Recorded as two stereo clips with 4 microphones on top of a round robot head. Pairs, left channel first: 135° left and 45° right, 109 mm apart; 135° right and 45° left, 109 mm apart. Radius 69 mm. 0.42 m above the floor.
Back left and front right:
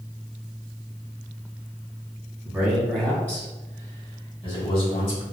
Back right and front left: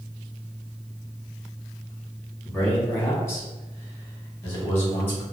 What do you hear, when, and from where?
2.5 s a man speaking: 90° right, 1.3 m; by 5.2 s 160° left, 2.5 m